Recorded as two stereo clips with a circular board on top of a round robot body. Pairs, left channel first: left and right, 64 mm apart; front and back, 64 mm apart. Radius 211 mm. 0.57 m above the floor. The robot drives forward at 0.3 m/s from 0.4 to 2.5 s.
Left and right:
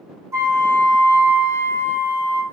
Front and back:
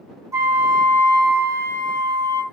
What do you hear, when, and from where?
0.3 s a flute: 135° right, 0.6 m; by 2.4 s 160° right, 1.1 m